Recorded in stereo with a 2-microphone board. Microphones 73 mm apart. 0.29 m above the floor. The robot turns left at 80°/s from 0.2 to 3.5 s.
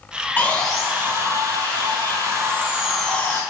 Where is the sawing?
25° left, 4 m; by 3.4 s 140° left, 4 m.